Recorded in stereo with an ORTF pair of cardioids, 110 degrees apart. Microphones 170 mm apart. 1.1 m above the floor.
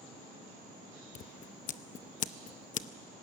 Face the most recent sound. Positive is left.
turn(degrees=50)